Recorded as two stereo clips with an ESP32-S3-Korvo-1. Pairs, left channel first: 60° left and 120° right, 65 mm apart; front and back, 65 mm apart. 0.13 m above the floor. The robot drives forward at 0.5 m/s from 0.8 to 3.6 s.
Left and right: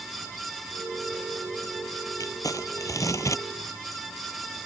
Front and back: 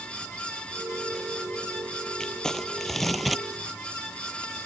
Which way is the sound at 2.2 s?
80° left.